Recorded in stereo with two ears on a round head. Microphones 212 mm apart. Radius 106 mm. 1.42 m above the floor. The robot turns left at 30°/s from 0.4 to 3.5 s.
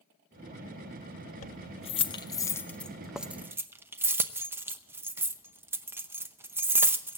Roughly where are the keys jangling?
Left.